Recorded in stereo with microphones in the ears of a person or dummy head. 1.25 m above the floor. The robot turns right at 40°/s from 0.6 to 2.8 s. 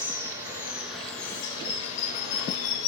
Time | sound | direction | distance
0.0 | running water | 20° right | 0.9 m